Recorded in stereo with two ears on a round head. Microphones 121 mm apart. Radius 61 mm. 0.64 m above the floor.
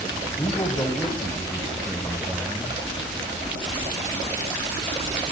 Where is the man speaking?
20° left (ahead or behind), 3 m; by 2.8 s 5° right (ahead or behind), 3 m.